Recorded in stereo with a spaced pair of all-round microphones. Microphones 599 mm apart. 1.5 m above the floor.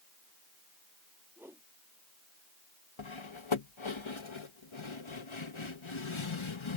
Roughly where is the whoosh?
Centre.